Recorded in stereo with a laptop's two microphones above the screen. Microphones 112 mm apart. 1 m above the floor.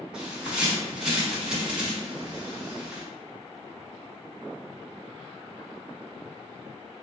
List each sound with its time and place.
0.1 s a bird: 10° right (ahead or behind), 1.3 m